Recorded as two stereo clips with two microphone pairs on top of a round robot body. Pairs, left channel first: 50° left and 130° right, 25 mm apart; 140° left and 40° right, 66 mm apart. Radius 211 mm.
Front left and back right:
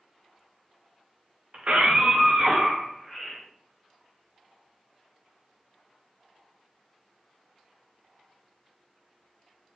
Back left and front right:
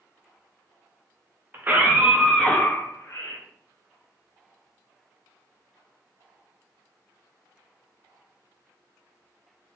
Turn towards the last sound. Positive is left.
turn(degrees=145)